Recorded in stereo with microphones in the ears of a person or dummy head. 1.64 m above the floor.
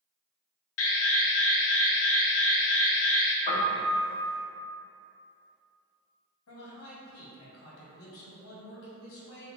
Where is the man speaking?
80° left, 1.5 m.